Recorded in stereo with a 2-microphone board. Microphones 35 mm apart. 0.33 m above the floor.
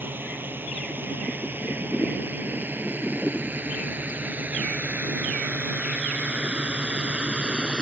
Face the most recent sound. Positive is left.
turn(degrees=-25)  # may be behind; listen again after turning